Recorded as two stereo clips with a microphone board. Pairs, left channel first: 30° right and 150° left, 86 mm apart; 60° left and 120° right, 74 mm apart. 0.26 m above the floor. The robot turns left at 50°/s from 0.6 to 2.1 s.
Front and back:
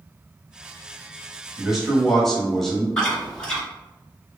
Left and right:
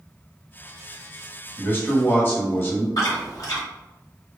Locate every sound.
1.6 s a man speaking: 75° left, 1.2 m; by 2.9 s 50° left, 1.2 m
3.0 s chewing: 45° left, 1.3 m